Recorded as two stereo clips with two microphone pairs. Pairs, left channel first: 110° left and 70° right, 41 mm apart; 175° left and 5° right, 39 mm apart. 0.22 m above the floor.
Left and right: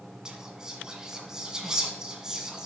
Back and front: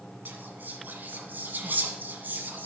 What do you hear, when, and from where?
0.2 s whispering: straight ahead, 1.5 m